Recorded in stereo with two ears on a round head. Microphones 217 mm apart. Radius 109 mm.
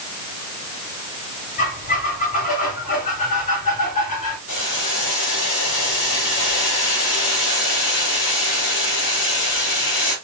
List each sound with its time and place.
1.6 s a squeak: 30° left (ahead or behind), 3 m
4.5 s boiling: 50° left (ahead or behind), 2.5 m